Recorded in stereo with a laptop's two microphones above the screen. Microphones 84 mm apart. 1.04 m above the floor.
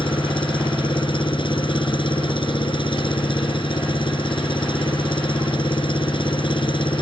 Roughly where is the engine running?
Left.